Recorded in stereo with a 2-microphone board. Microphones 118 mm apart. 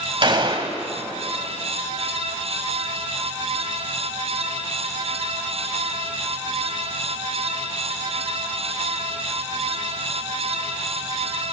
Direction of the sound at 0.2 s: 45° right (ahead or behind).